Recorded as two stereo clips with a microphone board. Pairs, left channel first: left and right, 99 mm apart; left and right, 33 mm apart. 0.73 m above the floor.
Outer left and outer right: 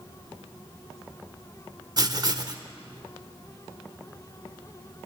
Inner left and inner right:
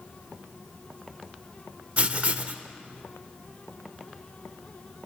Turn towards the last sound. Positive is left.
turn(degrees=-40)  # may be behind; listen again after turning